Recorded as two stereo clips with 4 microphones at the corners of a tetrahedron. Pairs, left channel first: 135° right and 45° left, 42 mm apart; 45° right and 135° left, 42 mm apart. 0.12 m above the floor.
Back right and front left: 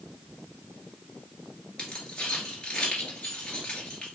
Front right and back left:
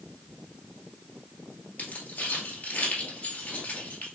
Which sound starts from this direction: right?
Keys jangling, at 1.8 s.